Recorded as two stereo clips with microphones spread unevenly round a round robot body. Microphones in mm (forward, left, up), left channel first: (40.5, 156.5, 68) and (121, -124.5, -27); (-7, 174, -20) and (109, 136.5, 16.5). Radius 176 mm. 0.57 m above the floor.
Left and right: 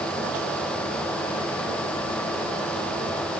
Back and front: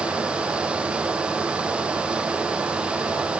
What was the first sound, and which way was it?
Only background noise.